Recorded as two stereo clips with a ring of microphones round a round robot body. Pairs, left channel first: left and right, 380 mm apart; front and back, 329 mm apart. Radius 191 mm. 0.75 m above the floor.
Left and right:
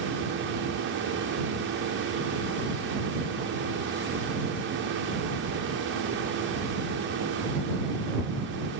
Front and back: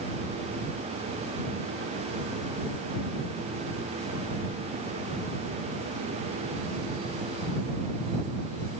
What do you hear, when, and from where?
Only background noise.